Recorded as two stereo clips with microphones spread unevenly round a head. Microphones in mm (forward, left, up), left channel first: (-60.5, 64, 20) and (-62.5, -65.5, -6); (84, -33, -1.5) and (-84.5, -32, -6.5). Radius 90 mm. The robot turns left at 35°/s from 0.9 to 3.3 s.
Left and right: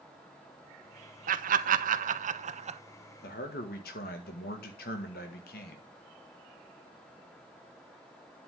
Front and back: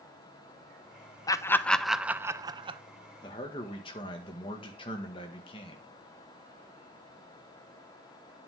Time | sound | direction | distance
1.3 | laughter | 70° right | 0.9 m
3.2 | a man speaking | 70° left | 1.8 m